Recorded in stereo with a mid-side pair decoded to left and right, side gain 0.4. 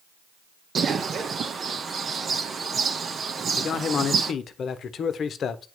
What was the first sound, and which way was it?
A bird, 50° right.